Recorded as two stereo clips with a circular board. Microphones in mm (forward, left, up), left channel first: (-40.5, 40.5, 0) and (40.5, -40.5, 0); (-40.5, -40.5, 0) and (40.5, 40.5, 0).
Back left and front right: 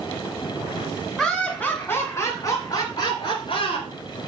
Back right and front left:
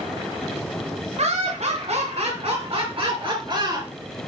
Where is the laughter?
45° left, 1.9 m; by 3.9 s 100° left, 3.5 m.